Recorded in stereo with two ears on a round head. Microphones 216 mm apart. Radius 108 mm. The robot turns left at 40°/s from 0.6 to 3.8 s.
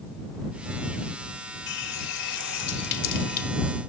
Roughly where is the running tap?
Left.